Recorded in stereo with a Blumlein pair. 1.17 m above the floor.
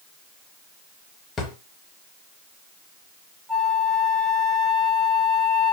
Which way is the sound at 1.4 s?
20° left.